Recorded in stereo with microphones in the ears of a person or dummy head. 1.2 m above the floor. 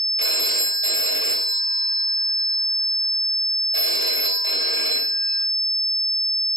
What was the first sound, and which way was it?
A phone ringing, 65° right (ahead or behind).